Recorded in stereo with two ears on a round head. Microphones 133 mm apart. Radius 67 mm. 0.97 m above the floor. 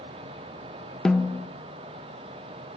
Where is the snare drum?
5° left (ahead or behind), 0.7 m.